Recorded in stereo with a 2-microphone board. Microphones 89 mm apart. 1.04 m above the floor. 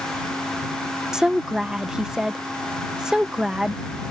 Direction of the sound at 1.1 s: 10° right (ahead or behind).